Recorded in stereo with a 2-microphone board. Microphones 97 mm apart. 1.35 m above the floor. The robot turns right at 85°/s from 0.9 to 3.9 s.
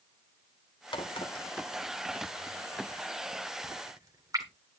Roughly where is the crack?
Left.